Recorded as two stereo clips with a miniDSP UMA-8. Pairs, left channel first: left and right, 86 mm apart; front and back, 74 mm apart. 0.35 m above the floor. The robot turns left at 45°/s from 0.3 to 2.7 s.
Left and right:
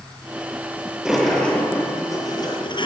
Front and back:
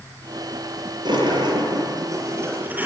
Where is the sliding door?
170° right, 8 m; by 2.9 s 115° left, 8 m.